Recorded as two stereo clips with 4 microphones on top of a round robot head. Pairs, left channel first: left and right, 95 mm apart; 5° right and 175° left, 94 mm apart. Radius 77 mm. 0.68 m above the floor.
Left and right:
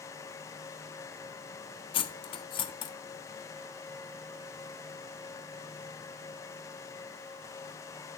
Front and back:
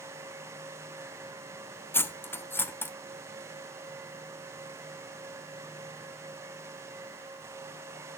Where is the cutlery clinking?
65° left, 0.7 m.